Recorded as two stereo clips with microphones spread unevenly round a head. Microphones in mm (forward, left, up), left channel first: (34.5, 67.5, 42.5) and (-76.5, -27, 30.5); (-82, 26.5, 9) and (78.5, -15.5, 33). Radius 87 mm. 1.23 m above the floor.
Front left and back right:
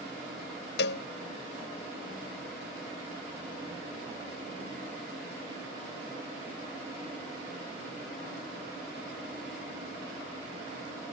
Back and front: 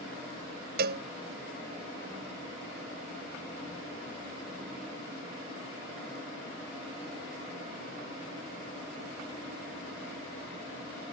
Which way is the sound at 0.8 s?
25° left.